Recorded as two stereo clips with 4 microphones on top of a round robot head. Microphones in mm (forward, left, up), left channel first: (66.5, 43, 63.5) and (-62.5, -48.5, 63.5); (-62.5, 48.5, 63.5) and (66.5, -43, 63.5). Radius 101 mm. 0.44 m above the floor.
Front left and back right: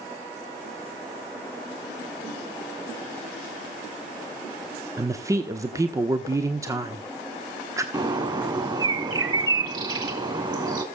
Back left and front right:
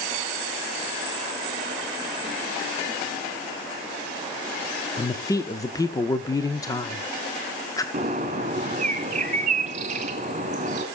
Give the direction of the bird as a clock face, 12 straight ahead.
3 o'clock.